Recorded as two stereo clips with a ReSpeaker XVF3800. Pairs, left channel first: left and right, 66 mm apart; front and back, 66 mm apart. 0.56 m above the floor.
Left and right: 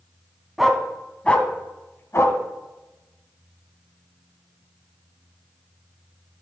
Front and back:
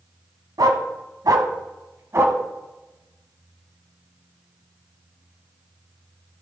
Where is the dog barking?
175° right, 1.3 m; by 2.4 s 130° left, 1.4 m.